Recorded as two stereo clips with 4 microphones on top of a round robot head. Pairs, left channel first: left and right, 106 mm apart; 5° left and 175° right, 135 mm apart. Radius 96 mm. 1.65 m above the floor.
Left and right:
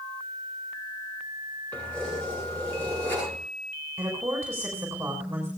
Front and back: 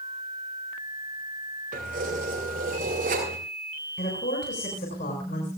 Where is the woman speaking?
20° right, 6.5 m.